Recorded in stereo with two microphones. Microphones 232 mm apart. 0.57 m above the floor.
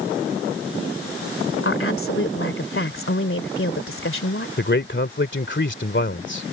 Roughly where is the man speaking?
Left.